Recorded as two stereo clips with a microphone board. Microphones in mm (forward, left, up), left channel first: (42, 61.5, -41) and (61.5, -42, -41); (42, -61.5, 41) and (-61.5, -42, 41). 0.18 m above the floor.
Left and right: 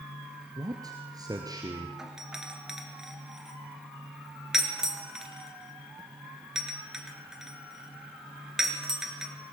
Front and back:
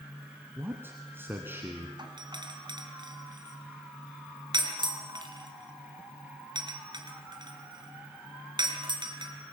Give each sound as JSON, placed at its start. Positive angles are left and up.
{"t": 0.6, "sound": "a man speaking", "azimuth_deg": -125, "distance_m": 1.9}
{"t": 2.0, "sound": "a doorbell", "azimuth_deg": -160, "distance_m": 3.0}